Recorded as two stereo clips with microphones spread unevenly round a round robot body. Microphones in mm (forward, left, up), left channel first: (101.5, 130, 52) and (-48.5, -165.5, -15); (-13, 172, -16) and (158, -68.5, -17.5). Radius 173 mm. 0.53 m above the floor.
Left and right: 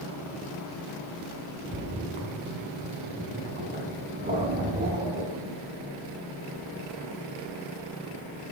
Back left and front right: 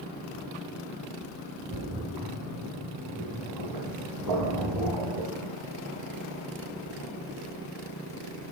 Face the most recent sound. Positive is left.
turn(degrees=-50)